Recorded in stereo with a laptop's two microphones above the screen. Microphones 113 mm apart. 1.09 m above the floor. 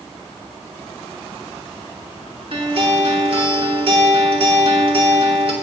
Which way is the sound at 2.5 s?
55° right (ahead or behind).